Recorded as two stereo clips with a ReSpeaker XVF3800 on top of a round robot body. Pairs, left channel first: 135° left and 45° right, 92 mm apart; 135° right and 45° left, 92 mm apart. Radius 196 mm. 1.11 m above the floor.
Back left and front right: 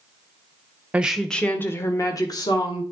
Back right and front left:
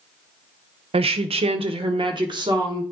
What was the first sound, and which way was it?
A woman speaking, 30° left.